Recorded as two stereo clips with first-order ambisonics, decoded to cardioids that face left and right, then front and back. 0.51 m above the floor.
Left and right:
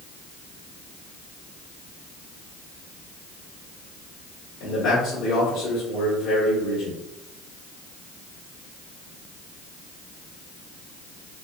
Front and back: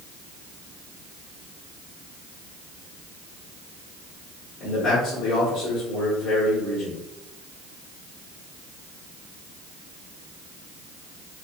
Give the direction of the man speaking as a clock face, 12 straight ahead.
10 o'clock.